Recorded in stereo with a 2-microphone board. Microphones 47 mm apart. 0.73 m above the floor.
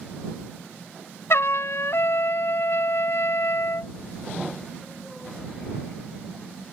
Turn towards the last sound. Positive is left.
turn(degrees=65)  # may be behind; listen again after turning